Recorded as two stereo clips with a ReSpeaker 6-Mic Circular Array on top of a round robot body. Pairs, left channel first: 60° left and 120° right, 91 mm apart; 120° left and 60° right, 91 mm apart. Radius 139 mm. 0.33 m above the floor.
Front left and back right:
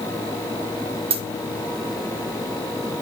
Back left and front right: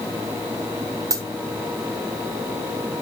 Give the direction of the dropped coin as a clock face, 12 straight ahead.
4 o'clock.